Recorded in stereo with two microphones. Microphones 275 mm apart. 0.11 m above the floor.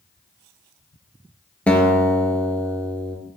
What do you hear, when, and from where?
1.7 s a guitar: 5° left (ahead or behind), 0.5 m